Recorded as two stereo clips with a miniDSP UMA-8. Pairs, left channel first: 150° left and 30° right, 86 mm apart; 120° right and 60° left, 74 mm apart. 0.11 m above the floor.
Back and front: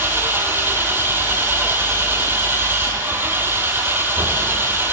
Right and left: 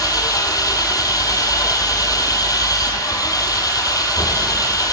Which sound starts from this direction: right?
An engine running, at 0.0 s.